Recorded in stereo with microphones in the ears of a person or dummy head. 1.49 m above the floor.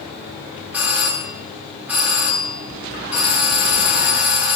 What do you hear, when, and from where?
0.7 s a doorbell: 10° right (ahead or behind), 1.6 m